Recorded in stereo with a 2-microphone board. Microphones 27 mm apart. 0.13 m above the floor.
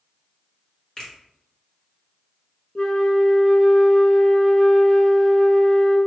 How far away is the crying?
I don't hear crying.